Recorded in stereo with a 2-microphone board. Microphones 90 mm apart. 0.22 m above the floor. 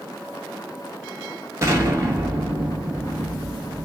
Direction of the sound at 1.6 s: 30° right (ahead or behind).